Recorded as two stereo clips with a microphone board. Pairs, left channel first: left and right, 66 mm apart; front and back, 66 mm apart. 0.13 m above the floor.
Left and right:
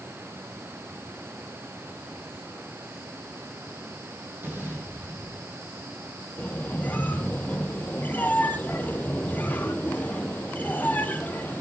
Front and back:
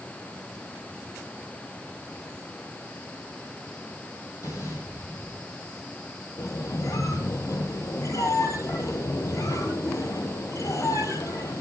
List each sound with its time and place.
4.4 s an explosion: 35° right, 5 m
6.4 s a squeak: 25° left, 1.2 m